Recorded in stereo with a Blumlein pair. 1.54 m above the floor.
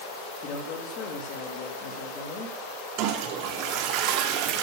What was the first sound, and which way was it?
A man speaking, 35° left.